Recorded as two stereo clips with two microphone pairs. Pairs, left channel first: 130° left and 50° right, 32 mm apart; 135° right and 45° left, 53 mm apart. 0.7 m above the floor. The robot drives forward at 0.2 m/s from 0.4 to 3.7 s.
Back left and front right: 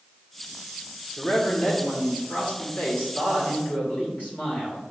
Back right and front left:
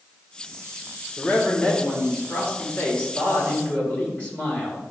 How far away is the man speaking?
About 2 m.